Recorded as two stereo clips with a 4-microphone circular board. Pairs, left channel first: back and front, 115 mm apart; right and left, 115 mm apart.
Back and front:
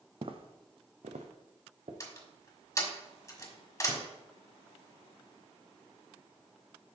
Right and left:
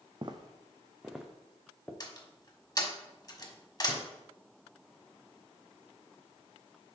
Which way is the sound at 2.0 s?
130° right.